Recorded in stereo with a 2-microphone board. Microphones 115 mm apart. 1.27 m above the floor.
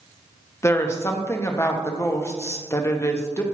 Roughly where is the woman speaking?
Left.